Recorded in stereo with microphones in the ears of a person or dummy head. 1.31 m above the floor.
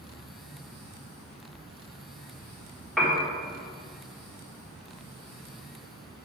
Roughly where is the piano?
Centre.